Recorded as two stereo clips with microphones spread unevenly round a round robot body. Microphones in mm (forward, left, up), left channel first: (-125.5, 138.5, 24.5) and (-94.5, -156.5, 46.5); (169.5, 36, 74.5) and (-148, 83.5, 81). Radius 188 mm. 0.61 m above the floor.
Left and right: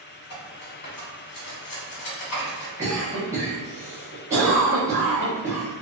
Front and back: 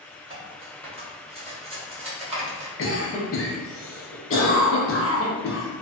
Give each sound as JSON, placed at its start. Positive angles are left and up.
{"t": 0.3, "sound": "cutlery clinking", "azimuth_deg": 100, "distance_m": 1.1}
{"t": 2.8, "sound": "a cough", "azimuth_deg": -5, "distance_m": 0.8}